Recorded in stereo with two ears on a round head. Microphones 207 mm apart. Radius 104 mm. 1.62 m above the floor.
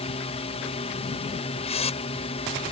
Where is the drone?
25° left (ahead or behind).